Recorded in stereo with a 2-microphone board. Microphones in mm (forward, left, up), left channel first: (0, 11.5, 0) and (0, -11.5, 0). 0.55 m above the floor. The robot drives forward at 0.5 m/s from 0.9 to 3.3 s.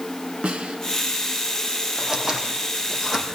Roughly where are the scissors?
Centre.